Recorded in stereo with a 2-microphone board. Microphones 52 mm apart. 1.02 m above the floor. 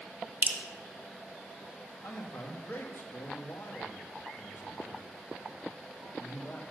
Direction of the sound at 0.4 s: 35° right (ahead or behind).